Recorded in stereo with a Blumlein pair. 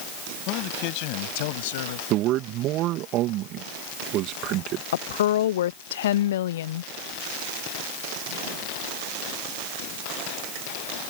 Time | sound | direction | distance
0.5 | a man speaking | 40° left | ?
2.1 | a man speaking | 35° right | ?
4.9 | a woman speaking | 60° left | ?